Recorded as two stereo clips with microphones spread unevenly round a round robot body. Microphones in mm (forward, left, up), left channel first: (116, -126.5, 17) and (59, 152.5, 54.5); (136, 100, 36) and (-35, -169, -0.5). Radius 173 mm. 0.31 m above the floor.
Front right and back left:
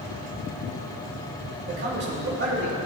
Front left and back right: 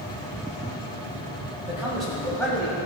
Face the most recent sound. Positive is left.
turn(degrees=135)